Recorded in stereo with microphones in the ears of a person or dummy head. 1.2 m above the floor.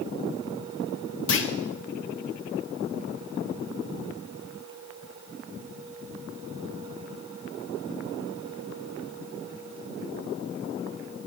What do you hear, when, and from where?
1.3 s a clunk: 65° left (ahead or behind), 1.2 m